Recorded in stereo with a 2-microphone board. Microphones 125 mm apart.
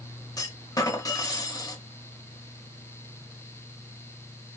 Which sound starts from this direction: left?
A clunk, at 0.4 s.